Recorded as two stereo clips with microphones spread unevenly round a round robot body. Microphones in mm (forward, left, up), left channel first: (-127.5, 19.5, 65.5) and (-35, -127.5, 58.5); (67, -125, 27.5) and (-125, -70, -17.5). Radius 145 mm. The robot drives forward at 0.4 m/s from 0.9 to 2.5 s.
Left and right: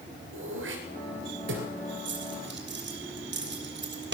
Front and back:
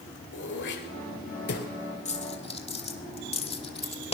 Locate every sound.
0.3 s throat clearing: 50° right, 3 m; by 1.7 s 55° right, 3 m
2.0 s a dropped coin: 75° right, 2.0 m; by 4.2 s 80° right, 1.9 m